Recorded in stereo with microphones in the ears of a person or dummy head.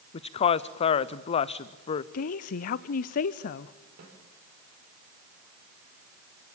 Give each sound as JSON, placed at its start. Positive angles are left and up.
{"t": 0.1, "sound": "a woman speaking", "side_deg": 35, "distance_m": 0.7}
{"t": 2.1, "sound": "a woman speaking", "side_deg": 50, "distance_m": 0.6}
{"t": 4.0, "sound": "a snare drum", "side_deg": -55, "distance_m": 4.5}